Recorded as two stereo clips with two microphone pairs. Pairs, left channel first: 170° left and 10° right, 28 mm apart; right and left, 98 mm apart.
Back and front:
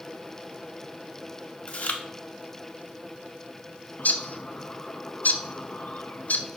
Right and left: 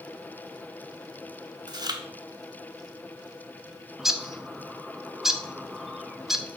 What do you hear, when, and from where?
1.7 s chewing: 135° left, 0.8 m
4.0 s a bird: straight behind, 0.6 m